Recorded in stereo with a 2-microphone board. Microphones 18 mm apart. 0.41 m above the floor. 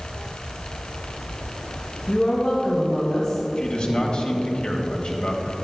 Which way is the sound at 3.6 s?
60° left (ahead or behind).